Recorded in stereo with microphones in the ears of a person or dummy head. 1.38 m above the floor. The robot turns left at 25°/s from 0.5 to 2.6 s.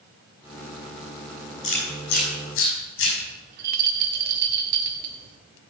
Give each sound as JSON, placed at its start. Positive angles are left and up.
{"t": 1.6, "sound": "chewing", "side_deg": 35, "distance_m": 5.5}
{"t": 3.5, "sound": "a rattle", "side_deg": -50, "distance_m": 1.6}